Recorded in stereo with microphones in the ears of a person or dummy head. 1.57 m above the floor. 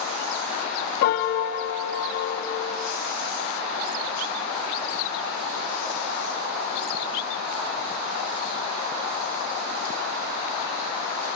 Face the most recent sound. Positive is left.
turn(degrees=60)  # may be behind; listen again after turning